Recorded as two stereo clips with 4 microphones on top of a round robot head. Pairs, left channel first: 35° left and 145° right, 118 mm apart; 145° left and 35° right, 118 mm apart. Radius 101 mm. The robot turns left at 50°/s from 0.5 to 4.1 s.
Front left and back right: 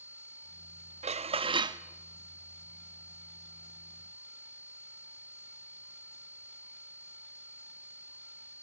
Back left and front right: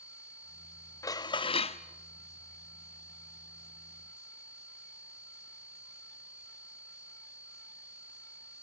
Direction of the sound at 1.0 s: 160° right.